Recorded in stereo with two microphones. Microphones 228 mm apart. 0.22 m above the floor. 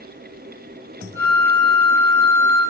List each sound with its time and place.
1.1 s a flute: 60° left (ahead or behind), 6 m